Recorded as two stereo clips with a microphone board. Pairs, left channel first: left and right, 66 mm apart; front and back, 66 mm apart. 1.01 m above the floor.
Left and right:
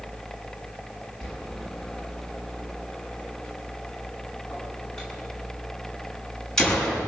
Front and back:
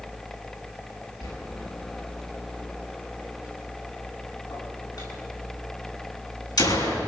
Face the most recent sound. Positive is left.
turn(degrees=10)